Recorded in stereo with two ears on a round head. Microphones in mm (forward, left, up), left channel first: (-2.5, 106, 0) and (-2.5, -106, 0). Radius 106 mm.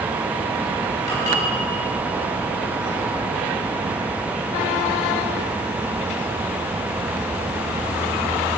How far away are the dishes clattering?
About 4 m.